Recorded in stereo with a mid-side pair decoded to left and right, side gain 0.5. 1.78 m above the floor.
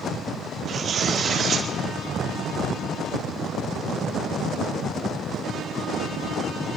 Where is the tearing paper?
55° right, 3 m.